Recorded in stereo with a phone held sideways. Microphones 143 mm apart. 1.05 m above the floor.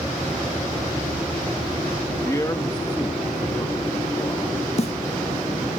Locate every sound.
2.2 s a man speaking: 20° left (ahead or behind), 1.1 m; by 4.7 s 30° left (ahead or behind), 3.5 m
4.8 s a snare drum: 50° left (ahead or behind), 0.5 m